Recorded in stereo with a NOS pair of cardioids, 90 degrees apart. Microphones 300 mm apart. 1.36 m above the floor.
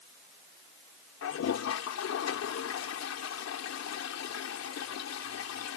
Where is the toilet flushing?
60° left.